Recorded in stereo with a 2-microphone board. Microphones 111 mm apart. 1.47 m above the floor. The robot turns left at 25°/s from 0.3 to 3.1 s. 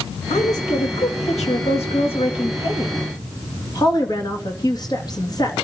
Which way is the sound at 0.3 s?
110° left.